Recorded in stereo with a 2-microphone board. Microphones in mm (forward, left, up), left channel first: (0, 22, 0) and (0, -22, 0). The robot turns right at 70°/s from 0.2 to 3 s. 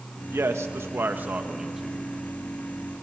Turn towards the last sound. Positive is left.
turn(degrees=80)